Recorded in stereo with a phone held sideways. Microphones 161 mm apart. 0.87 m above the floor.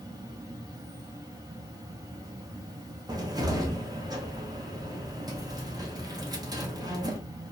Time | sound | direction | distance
0.0 | an insect | 25° right (ahead or behind) | 0.7 m
3.1 | a cupboard door | 25° right (ahead or behind) | 0.6 m